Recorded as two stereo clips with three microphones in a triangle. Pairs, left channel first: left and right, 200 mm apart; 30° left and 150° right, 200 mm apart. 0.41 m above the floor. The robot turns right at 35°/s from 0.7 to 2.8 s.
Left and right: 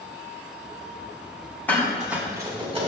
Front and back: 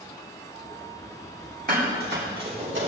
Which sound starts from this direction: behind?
Dishes clattering, at 1.7 s.